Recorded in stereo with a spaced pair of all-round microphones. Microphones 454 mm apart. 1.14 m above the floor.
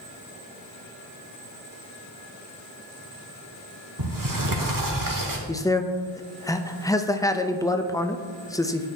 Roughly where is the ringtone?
No ringtone in this recording.